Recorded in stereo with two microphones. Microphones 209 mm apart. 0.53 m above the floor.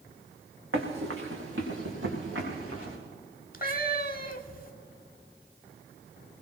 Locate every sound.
0.7 s running footsteps: 75° right (ahead or behind), 2.5 m; by 3.0 s 80° right, 6 m
3.5 s a cat meowing: 45° left (ahead or behind), 0.8 m